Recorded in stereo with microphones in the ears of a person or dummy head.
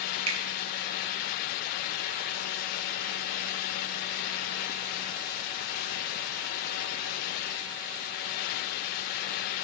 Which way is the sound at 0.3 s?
35° right (ahead or behind).